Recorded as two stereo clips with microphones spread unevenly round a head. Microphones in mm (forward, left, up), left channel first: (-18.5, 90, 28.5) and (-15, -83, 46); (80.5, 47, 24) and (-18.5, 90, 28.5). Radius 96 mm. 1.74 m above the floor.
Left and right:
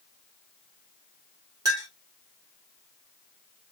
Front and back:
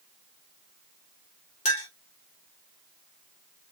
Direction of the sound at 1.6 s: 20° right.